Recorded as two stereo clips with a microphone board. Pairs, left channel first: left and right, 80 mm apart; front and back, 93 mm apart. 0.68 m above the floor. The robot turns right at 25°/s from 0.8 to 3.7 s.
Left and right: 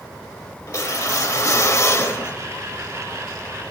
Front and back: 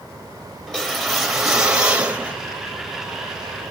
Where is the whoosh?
80° left, 1.1 m; by 2.4 s 120° left, 1.1 m.